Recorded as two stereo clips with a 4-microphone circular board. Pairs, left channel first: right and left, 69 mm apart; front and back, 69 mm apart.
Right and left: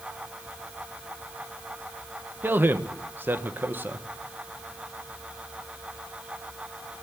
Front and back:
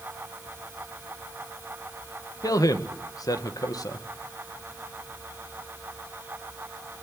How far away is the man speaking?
About 1.8 m.